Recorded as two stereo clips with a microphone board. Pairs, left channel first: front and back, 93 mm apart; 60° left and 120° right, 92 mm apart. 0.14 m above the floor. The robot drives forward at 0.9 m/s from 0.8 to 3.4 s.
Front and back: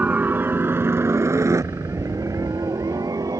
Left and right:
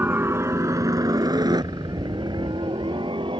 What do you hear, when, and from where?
0.0 s a helicopter: 140° right; by 3.4 s 135° right